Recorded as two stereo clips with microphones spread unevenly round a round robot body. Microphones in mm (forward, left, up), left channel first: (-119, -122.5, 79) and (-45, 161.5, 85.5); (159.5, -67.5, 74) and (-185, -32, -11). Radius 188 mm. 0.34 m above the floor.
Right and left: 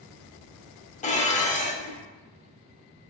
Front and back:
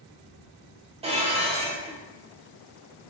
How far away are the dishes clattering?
About 0.6 m.